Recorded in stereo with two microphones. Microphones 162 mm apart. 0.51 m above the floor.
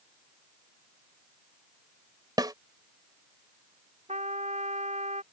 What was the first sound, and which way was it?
A snare drum, 25° right (ahead or behind).